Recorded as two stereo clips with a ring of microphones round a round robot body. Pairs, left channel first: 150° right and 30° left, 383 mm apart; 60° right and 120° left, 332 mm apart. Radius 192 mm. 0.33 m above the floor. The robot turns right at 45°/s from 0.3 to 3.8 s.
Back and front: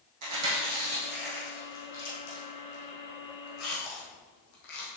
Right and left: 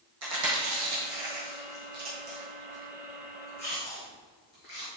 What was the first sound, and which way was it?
Chewing, 75° left.